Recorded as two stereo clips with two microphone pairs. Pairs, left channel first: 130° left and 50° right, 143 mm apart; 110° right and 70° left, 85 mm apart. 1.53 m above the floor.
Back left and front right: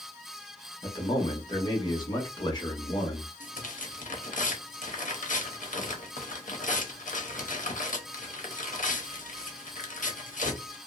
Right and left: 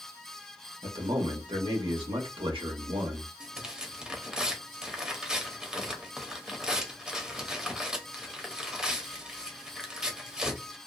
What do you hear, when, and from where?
0.8 s a man speaking: 70° left, 1.0 m
3.4 s tearing paper: 150° left, 0.7 m